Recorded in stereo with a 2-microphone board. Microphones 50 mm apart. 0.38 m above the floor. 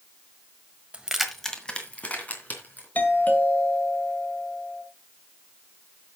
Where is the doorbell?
35° left (ahead or behind), 2.0 m.